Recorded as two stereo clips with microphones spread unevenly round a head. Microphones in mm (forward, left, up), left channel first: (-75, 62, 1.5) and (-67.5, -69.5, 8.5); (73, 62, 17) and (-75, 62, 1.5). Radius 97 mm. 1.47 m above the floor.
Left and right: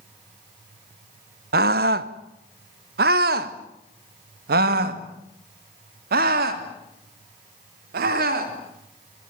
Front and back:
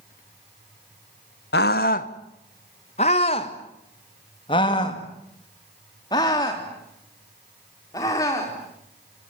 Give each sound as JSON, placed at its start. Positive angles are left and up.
{"t": 1.5, "sound": "a scream", "azimuth_deg": -45, "distance_m": 0.9}